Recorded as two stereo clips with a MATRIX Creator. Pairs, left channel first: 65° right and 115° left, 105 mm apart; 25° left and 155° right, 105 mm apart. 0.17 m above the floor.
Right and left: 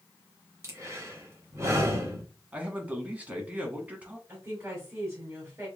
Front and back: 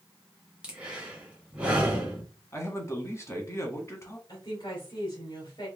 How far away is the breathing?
About 1.5 m.